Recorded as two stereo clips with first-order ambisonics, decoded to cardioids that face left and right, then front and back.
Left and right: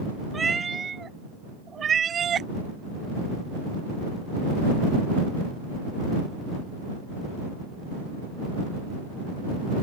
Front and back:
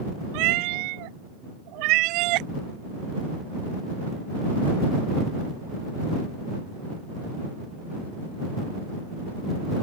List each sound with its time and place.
0.3 s a cat meowing: 165° right; by 2.5 s 155° right